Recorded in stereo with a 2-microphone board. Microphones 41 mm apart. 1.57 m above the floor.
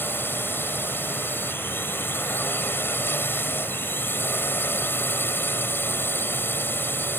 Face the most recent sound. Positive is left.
turn(degrees=55)  # may be behind; listen again after turning